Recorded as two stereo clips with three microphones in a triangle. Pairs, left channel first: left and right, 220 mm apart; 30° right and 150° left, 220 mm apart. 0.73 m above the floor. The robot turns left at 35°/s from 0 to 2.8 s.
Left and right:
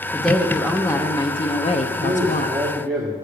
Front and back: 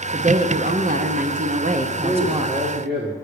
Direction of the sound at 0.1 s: 175° right.